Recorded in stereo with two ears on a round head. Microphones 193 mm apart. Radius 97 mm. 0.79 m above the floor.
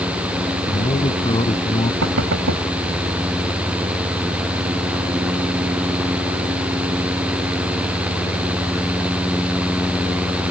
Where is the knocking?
70° right (ahead or behind).